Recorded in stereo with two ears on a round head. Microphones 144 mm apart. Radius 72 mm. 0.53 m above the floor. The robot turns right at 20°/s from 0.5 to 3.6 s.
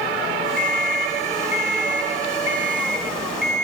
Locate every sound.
0.6 s an alarm clock: 120° right, 2.5 m; by 3.6 s 60° right, 2.5 m